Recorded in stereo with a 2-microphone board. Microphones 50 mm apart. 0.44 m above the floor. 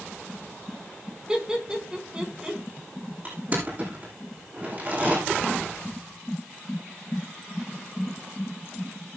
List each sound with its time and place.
1.3 s laughter: 20° right (ahead or behind), 4 m
3.2 s crushing: 40° right (ahead or behind), 10 m